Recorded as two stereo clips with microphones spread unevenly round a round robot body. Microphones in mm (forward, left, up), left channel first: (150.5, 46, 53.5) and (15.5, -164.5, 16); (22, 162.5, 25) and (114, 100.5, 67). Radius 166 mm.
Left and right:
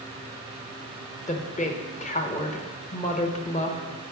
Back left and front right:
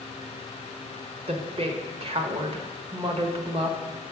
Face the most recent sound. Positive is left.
turn(degrees=0)